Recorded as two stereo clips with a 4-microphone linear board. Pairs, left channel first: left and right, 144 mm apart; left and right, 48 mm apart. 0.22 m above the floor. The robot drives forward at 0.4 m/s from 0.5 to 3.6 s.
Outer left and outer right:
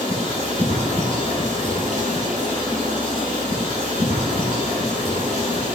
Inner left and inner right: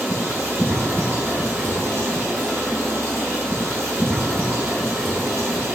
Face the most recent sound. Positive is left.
turn(degrees=-65)  # may be behind; listen again after turning